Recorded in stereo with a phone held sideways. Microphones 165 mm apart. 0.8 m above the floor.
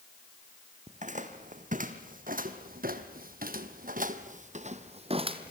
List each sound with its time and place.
0.9 s footsteps: 50° right (ahead or behind), 2.5 m; by 5.5 s 30° right (ahead or behind), 1.7 m